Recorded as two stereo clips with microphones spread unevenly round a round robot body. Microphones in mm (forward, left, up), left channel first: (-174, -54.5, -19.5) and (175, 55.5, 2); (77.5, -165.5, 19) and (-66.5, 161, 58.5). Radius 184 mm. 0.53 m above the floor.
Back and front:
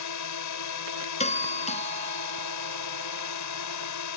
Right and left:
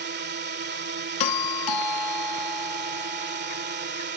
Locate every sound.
0.0 s a drone: 170° left
1.2 s a doorbell: 90° right